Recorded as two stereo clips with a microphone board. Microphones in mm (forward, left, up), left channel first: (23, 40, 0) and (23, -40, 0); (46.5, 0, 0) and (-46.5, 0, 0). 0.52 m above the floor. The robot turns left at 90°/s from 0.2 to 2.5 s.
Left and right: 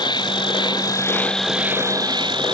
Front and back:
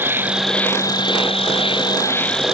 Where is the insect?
110° left; by 2.5 s 95° right.